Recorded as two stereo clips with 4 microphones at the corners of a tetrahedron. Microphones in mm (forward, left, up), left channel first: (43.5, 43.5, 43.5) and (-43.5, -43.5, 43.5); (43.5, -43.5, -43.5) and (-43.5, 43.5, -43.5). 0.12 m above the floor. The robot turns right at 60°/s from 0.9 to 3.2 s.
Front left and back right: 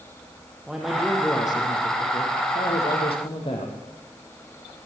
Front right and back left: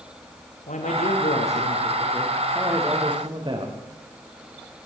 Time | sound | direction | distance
0.7 | a man speaking | 45° right | 5 m